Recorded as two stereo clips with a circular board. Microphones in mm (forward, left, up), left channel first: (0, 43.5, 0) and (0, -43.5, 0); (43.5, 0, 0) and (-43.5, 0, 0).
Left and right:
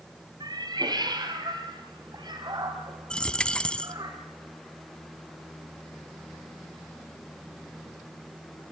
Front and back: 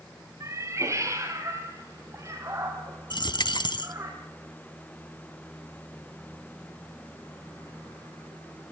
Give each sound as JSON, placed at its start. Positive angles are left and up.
{"t": 0.4, "sound": "a cat meowing", "azimuth_deg": -125, "distance_m": 2.5}
{"t": 3.1, "sound": "a dropped coin", "azimuth_deg": 10, "distance_m": 0.9}